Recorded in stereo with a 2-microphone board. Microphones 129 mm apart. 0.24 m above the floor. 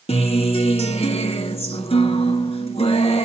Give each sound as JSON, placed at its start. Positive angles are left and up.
{"t": 0.1, "sound": "a guitar", "side_deg": 50, "distance_m": 0.6}